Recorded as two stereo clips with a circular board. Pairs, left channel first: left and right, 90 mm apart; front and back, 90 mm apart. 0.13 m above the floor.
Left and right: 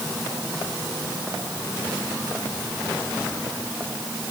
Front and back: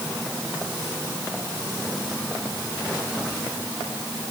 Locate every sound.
Only background noise.